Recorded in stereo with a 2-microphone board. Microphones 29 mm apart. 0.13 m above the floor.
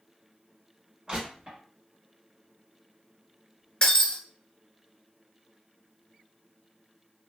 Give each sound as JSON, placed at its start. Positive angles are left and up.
{"t": 1.1, "sound": "crushing", "side_deg": -30, "distance_m": 1.7}
{"t": 3.8, "sound": "breaking glass", "side_deg": 30, "distance_m": 0.9}